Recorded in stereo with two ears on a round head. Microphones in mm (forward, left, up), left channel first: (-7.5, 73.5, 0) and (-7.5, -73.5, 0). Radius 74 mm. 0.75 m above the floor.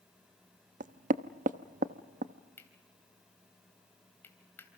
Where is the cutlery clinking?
15° left (ahead or behind), 2.5 m.